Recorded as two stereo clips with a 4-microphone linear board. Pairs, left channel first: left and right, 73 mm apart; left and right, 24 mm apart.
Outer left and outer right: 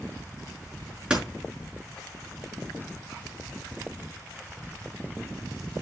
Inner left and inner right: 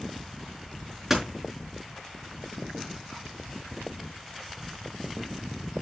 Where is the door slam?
10° right (ahead or behind), 4.5 m.